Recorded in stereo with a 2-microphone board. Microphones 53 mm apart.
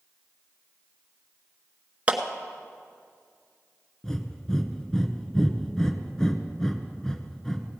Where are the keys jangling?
I don't hear keys jangling.